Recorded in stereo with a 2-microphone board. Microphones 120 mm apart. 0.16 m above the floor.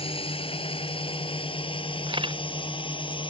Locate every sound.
0.0 s a drone: 50° left (ahead or behind); by 3.3 s 45° left (ahead or behind)
2.1 s a camera shutter: 45° right (ahead or behind)